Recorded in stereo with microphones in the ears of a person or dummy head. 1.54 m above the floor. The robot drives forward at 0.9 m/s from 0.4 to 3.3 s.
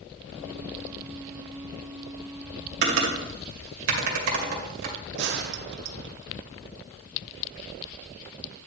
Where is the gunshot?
55° right (ahead or behind), 0.6 m.